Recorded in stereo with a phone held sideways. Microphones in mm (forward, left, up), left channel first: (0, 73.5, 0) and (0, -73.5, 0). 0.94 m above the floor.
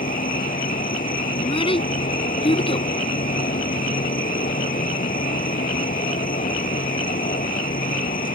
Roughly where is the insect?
Left.